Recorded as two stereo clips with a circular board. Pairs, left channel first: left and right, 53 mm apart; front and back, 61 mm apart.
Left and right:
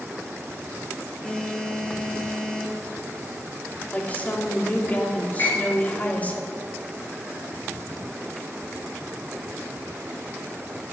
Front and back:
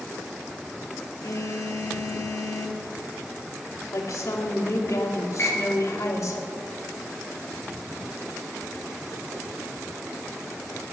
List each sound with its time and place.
1.2 s a phone buzzing: 10° left, 1.6 m
3.9 s a woman speaking: 30° left, 2.5 m
5.4 s a piano: 55° left, 6 m